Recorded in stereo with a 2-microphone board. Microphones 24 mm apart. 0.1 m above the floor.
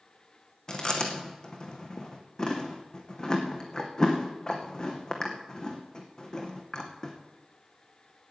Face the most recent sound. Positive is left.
turn(degrees=25)  # may be behind; listen again after turning